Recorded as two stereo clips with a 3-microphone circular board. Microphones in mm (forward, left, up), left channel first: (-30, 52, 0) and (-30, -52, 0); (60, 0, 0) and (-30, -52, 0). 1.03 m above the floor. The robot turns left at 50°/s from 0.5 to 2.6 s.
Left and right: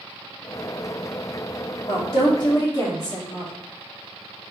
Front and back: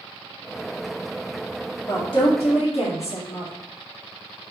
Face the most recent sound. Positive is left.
turn(degrees=40)